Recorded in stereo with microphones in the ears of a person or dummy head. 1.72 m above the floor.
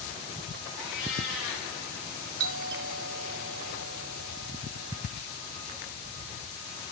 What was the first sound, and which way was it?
A cat meowing, 75° left (ahead or behind).